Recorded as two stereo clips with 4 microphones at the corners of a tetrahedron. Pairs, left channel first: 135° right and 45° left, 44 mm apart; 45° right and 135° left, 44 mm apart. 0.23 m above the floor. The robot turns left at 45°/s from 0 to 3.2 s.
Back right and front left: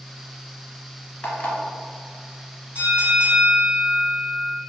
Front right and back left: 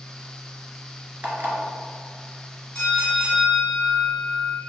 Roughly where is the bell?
Ahead.